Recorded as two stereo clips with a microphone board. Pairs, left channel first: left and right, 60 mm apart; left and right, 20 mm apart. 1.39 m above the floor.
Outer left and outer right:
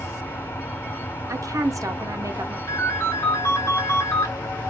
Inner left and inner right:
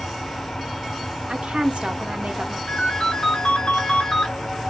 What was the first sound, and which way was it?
An engine running, 50° left (ahead or behind).